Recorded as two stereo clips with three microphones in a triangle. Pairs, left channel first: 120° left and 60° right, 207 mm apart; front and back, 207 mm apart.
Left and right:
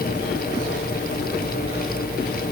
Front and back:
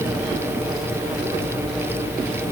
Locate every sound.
Only background noise.